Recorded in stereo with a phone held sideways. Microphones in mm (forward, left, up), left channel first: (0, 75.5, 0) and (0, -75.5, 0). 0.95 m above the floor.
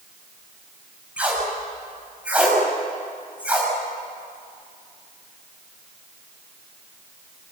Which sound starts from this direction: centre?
Tape being pulled, at 1.2 s.